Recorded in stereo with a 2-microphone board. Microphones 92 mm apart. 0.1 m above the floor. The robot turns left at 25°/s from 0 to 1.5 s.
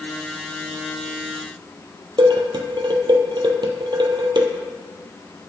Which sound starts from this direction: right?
Dishes clattering, at 2.2 s.